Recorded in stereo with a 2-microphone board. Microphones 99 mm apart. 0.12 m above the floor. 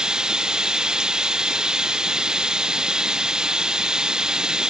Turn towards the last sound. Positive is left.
turn(degrees=-10)  # may be behind; listen again after turning